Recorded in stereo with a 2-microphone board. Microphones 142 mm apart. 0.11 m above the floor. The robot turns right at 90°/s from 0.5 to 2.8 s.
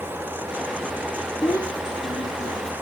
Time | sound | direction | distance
1.4 | a child speaking | 30° left | 0.9 m